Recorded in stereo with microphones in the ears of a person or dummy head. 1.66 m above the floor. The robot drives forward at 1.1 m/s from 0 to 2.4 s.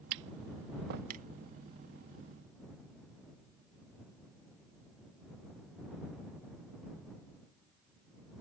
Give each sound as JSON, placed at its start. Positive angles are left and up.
{"t": 0.1, "sound": "tapping", "side_deg": -60}